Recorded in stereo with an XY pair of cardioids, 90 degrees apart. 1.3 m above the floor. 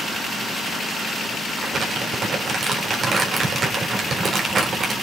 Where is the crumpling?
50° right, 4 m.